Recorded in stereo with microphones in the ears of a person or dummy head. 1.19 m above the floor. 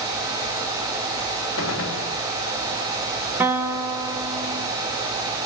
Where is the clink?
No clink in this recording.